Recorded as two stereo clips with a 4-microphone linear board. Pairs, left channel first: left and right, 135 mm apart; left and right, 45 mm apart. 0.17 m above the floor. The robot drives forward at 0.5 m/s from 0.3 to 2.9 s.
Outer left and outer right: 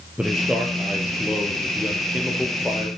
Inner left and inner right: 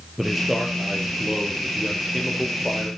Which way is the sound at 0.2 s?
5° right (ahead or behind).